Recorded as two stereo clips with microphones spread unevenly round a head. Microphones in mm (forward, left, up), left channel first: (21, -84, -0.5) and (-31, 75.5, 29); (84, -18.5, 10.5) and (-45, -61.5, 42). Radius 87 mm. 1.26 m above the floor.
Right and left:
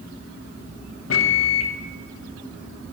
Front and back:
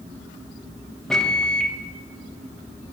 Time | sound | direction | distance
1.1 | a microwave | 70° right | 1.0 m